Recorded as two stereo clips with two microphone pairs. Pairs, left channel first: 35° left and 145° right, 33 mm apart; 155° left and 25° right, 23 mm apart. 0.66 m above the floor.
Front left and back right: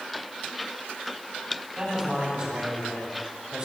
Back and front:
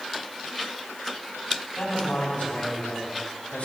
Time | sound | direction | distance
1.8 | a man speaking | 160° left | 4 m